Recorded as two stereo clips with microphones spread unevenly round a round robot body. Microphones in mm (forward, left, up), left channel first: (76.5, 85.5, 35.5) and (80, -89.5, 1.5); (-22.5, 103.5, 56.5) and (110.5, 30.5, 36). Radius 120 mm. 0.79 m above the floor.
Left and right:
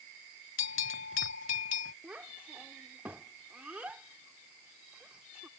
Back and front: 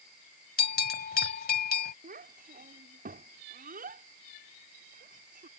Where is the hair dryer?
No hair dryer in this recording.